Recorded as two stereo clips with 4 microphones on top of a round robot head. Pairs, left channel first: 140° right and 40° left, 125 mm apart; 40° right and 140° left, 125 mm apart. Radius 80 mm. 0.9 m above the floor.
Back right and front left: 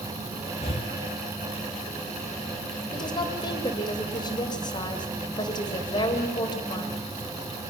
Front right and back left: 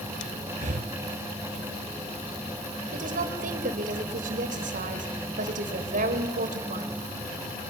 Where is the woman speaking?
165° left, 3.5 m.